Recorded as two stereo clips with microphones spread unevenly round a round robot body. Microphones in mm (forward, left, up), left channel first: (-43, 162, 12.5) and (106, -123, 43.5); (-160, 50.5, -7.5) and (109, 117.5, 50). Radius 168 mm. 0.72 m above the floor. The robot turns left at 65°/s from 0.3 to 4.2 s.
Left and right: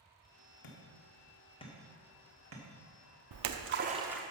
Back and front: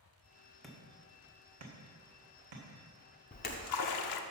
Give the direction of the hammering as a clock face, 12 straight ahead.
8 o'clock.